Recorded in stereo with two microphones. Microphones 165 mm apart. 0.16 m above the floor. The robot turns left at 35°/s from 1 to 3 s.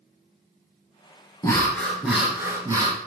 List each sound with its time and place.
1.4 s breathing: 25° left, 1.1 m; by 3.0 s 30° right, 1.1 m